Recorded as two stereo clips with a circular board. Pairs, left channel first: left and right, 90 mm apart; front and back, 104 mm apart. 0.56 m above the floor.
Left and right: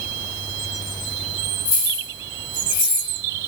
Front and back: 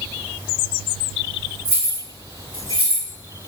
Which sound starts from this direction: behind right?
Keys jangling, at 1.6 s.